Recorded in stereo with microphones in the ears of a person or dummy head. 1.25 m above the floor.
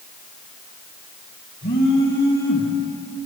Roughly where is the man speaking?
No man speaking in this recording.